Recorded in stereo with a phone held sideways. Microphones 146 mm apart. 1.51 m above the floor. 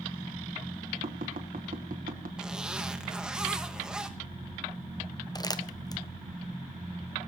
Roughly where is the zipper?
Centre.